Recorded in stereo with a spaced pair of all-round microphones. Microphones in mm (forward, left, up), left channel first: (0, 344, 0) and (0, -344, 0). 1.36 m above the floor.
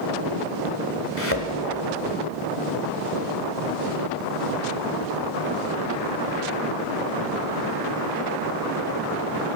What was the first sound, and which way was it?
A thud, 20° left (ahead or behind).